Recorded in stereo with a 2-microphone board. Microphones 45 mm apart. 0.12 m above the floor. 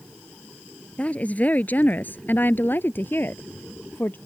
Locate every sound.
1.0 s a woman speaking: 30° left (ahead or behind); by 4.2 s 55° left (ahead or behind)